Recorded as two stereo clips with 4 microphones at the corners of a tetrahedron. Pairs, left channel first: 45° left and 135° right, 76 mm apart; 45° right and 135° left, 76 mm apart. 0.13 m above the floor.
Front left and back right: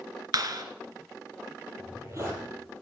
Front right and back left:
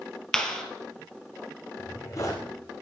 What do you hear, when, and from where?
0.3 s a clap: 125° right, 2 m
1.8 s a zipper: 85° right, 5.5 m